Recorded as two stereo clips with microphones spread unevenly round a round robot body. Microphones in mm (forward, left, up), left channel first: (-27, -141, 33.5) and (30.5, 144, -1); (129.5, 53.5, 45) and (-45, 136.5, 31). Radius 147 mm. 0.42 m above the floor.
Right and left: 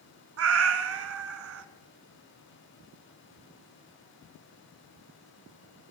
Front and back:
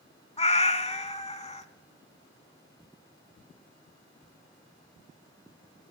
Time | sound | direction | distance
0.4 | a cat meowing | 35° left | 1.2 m